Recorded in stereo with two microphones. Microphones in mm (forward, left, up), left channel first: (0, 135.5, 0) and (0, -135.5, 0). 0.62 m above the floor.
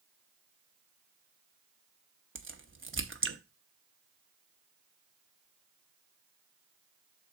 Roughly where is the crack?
Right.